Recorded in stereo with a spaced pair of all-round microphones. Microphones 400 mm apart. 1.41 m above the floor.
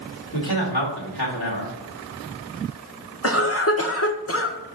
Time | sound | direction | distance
0.3 | a man speaking | 70° left (ahead or behind) | 1.9 m
3.2 | a cough | 35° left (ahead or behind) | 0.9 m